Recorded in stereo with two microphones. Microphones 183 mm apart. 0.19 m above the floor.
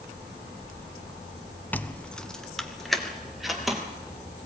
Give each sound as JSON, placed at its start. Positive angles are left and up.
{"t": 1.7, "sound": "keys jangling", "side_deg": 10, "distance_m": 0.7}